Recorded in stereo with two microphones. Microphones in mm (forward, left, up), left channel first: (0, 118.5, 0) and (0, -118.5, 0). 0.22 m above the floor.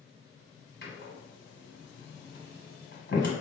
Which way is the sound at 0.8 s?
50° left (ahead or behind).